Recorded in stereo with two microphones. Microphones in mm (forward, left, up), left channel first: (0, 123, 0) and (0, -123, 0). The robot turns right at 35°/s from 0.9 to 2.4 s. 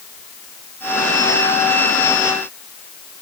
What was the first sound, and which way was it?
Only background noise.